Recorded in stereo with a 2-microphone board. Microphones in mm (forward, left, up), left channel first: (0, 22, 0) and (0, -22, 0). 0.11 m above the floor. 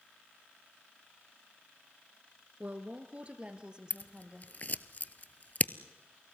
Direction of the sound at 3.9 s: 40° left (ahead or behind).